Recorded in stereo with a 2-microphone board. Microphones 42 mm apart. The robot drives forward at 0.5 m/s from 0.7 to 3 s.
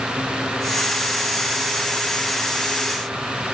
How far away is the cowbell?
I don't hear a cowbell.